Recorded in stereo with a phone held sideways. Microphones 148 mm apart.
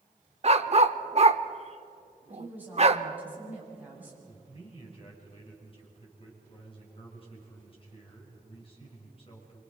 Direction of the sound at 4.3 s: 40° left (ahead or behind).